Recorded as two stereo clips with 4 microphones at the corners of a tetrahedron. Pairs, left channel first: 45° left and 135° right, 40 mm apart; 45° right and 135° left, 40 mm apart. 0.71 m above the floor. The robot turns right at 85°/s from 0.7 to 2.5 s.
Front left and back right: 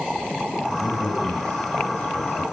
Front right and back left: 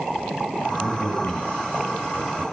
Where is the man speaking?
70° right, 4.5 m; by 2.4 s 70° left, 4.5 m.